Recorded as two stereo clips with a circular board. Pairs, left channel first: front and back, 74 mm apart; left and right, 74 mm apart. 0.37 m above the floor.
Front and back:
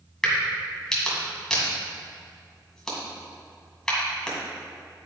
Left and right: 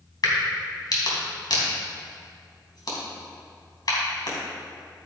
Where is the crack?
80° left, 3 m.